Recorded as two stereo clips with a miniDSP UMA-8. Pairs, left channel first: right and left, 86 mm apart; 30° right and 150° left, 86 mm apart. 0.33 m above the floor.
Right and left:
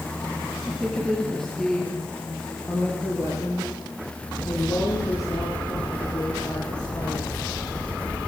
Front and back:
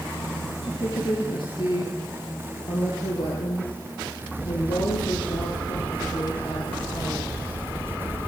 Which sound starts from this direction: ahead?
A woman speaking, at 0.6 s.